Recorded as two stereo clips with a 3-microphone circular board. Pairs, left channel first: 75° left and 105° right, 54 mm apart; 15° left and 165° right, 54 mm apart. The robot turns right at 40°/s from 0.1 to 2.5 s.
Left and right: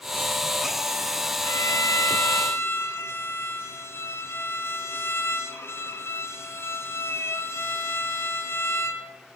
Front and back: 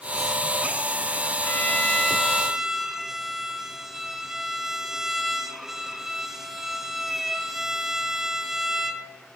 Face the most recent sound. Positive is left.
turn(degrees=110)